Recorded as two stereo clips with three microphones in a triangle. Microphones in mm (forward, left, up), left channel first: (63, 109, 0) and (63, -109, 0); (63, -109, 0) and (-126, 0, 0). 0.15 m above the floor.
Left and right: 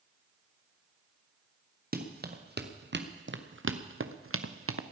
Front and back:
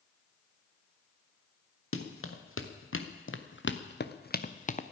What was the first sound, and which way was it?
Running footsteps, 45° right.